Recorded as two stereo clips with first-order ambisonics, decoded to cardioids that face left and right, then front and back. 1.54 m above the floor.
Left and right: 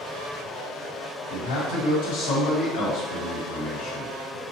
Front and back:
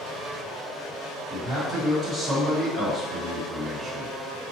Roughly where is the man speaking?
Left.